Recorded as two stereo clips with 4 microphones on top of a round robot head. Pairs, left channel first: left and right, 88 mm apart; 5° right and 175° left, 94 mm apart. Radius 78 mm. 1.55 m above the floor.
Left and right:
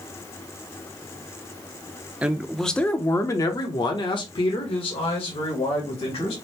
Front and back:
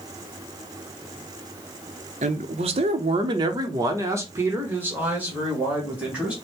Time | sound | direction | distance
2.2 | a man speaking | 165° right | 0.7 m